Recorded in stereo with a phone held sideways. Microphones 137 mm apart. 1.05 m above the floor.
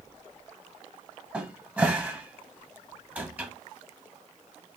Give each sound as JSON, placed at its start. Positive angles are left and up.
{"t": 1.3, "sound": "a cupboard door", "side_deg": -10, "distance_m": 0.8}